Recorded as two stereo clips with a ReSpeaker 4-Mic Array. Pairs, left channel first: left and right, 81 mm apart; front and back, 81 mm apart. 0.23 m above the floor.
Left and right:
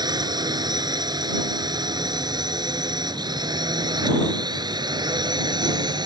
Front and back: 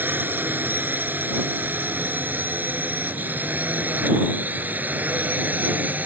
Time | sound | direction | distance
0.0 | a drone | 115° right | ?